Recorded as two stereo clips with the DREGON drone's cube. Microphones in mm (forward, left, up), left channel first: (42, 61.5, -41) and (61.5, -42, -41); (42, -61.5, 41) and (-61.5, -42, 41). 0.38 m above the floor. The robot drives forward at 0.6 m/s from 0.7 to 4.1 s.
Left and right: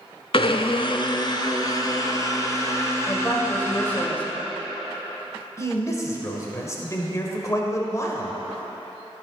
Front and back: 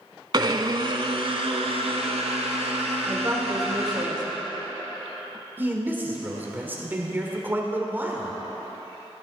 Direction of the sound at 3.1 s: 150° left.